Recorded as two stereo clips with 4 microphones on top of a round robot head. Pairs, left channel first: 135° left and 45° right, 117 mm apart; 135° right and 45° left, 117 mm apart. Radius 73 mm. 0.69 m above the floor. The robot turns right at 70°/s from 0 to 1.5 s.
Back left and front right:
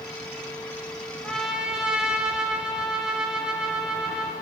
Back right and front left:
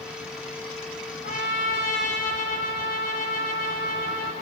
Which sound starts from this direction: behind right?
A trumpet, at 1.2 s.